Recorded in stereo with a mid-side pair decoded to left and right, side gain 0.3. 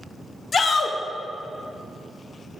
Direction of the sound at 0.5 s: 55° left.